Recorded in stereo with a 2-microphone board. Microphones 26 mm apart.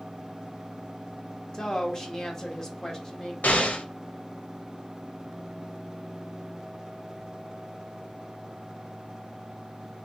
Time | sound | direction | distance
1.5 | a woman speaking | 20° left (ahead or behind) | 0.8 m
3.4 | an explosion | 80° left | 0.6 m